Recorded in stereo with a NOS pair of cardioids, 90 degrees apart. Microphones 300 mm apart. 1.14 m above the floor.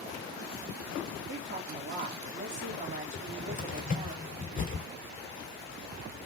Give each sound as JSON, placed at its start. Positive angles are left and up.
{"t": 1.3, "sound": "a woman speaking", "azimuth_deg": -30, "distance_m": 2.0}
{"t": 3.1, "sound": "a cupboard door", "azimuth_deg": 25, "distance_m": 1.7}